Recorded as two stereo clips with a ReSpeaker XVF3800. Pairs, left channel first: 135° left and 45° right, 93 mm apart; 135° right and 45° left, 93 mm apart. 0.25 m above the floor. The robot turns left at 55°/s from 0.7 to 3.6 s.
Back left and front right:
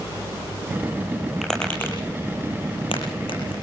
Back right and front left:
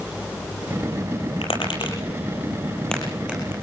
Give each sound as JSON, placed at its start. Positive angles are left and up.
{"t": 1.4, "sound": "tapping", "azimuth_deg": -130, "distance_m": 8.5}